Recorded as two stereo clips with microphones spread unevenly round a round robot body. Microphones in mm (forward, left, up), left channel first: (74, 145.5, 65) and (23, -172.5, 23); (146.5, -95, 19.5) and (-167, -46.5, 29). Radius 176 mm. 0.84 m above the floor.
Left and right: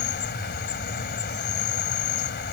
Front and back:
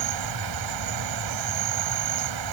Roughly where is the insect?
Behind left.